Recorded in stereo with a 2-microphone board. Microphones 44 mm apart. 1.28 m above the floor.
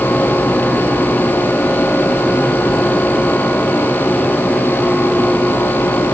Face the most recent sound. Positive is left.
No sound to turn to.